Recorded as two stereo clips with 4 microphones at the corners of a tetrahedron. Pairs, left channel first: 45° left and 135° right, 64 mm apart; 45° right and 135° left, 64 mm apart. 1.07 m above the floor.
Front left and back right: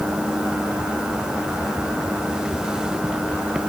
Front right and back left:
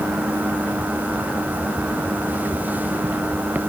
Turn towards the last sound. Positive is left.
No sound to turn to.